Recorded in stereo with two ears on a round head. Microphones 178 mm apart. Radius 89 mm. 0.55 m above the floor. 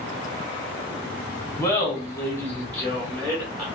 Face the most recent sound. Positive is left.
turn(degrees=5)  # may be behind; listen again after turning